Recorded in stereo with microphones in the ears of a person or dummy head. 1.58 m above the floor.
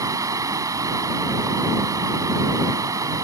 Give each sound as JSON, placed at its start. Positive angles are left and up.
{"t": 0.0, "sound": "running water", "side_deg": -20}